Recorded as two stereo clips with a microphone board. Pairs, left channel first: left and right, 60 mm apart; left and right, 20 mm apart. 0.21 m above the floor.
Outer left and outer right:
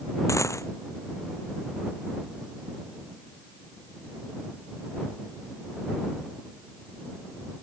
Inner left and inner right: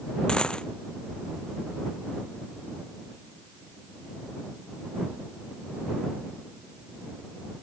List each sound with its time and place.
0.3 s a dropped coin: 55° left (ahead or behind)